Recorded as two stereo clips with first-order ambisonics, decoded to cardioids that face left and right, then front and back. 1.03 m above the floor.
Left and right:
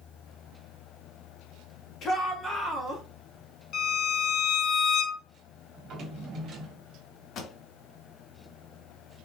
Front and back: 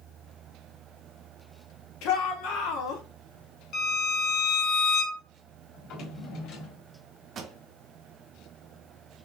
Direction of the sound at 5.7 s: 35° right.